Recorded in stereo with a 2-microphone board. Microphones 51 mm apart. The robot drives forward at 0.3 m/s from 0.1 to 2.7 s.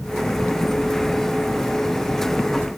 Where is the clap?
No clap in this recording.